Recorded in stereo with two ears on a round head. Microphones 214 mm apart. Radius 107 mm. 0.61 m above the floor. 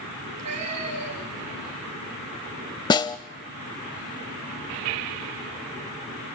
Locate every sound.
0.2 s a cat meowing: 75° right (ahead or behind), 6 m; by 1.5 s 80° right, 6 m
2.9 s a snare drum: 20° left (ahead or behind), 0.6 m